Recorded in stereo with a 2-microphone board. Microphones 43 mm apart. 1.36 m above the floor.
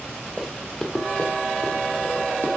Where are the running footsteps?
5° left (ahead or behind), 1.4 m; by 2.5 s 45° left (ahead or behind), 1.9 m.